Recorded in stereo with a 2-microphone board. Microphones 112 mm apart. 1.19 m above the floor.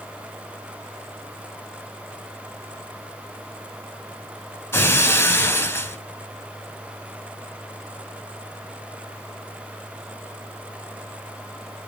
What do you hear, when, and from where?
4.7 s breaking glass: 20° left (ahead or behind), 2.5 m